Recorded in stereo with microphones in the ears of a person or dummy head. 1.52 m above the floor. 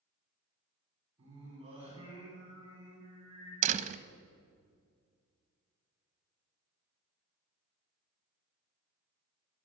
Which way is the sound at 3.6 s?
45° right (ahead or behind).